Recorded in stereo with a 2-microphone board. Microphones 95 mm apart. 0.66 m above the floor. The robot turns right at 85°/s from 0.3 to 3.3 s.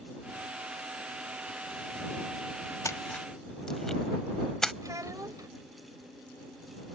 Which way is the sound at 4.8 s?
40° right (ahead or behind).